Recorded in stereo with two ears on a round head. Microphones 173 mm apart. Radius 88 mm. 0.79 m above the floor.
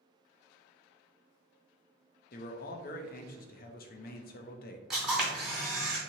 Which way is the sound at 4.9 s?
5° right (ahead or behind).